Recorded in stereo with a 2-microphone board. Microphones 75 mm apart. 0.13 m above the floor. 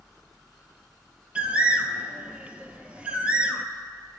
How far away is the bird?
About 0.6 m.